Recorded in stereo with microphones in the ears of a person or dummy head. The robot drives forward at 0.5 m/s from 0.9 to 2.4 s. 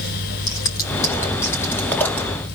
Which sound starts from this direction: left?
Scissors, at 0.5 s.